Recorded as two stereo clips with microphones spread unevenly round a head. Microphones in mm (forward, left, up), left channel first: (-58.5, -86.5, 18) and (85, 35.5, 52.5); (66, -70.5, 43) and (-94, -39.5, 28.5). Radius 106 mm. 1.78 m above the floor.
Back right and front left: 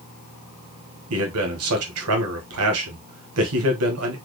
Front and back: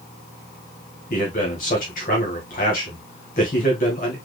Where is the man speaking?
40° left, 1.7 m.